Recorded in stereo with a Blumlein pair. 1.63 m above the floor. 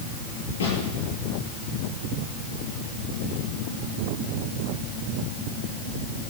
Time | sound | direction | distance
0.6 | a snare drum | 65° left | 7.5 m